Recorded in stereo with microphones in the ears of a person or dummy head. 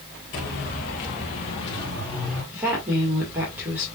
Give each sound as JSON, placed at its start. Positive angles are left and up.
{"t": 0.3, "sound": "footsteps", "side_deg": 50, "distance_m": 2.5}
{"t": 2.5, "sound": "a woman speaking", "side_deg": -15, "distance_m": 2.0}